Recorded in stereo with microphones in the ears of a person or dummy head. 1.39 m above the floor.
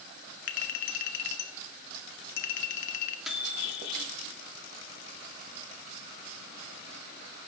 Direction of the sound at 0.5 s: 55° left (ahead or behind).